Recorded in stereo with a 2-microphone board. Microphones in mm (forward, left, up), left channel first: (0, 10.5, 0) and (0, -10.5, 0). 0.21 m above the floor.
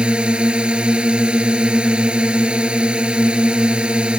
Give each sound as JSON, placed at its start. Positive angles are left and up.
{"t": 0.0, "sound": "a drone", "side_deg": -50}